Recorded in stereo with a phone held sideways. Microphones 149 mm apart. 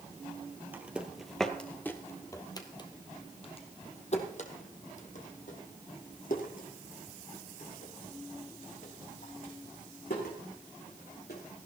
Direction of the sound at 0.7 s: 10° right (ahead or behind).